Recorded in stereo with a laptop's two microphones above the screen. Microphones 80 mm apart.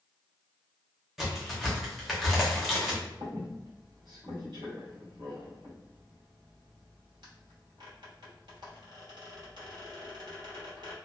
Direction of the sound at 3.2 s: 65° right (ahead or behind).